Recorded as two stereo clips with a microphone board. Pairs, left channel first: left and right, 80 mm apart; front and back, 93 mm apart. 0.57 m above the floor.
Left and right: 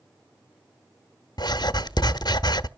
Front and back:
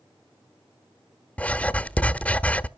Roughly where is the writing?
Left.